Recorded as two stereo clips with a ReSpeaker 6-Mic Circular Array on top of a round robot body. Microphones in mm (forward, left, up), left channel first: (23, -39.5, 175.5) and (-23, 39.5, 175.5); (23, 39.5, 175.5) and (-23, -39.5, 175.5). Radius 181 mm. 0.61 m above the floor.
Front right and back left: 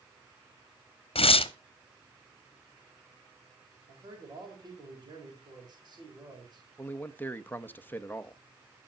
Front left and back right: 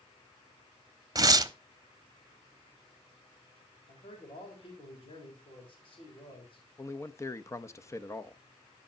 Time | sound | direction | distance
1.1 | tearing paper | 70° right | 0.9 m
3.9 | a man speaking | 80° left | 4 m
6.8 | a man speaking | 5° left | 0.9 m